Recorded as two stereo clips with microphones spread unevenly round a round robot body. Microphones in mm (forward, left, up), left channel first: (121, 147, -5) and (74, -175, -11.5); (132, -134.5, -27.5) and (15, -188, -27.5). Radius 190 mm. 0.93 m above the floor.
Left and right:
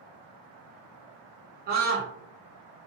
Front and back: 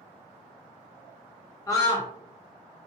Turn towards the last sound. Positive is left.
turn(degrees=-40)